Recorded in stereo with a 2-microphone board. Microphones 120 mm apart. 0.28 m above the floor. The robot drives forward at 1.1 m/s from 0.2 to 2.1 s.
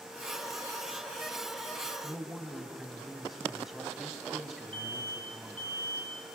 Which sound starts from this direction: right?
An alarm, at 4.7 s.